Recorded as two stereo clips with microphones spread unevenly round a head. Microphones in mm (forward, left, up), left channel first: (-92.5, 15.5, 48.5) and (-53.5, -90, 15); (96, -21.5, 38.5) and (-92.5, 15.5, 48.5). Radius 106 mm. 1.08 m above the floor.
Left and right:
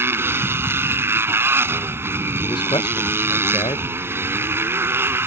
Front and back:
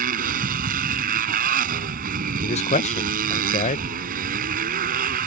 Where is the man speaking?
45° left.